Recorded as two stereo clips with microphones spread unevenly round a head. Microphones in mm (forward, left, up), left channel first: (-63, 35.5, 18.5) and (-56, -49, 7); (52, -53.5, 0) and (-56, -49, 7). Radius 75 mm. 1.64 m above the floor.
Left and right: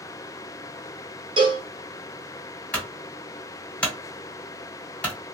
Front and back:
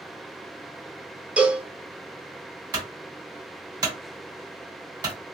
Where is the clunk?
155° left, 1.8 m.